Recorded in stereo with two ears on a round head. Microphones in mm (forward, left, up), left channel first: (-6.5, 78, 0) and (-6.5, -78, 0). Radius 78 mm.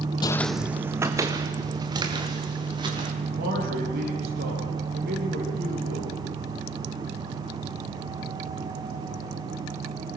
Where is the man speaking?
60° right (ahead or behind), 10 m.